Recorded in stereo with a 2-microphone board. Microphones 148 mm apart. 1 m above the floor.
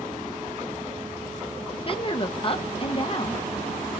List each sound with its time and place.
1.7 s a woman speaking: 40° left (ahead or behind), 0.7 m